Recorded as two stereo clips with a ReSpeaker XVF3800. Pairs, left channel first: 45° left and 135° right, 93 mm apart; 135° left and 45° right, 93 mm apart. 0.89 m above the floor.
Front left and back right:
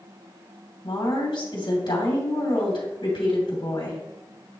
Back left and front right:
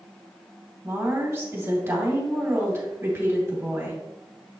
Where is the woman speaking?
20° left, 2.5 m.